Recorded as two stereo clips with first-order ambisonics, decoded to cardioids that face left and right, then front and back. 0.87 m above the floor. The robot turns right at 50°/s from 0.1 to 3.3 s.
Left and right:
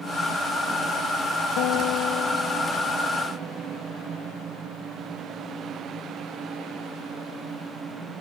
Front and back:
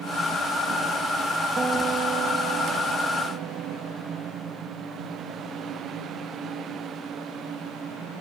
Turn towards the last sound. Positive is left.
turn(degrees=-170)